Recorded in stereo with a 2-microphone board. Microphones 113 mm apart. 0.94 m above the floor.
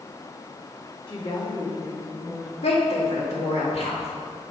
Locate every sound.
1.1 s a woman speaking: 45° left (ahead or behind), 1.8 m; by 2.5 s centre (ahead or behind), 1.2 m
2.6 s a woman speaking: 65° left (ahead or behind), 1.9 m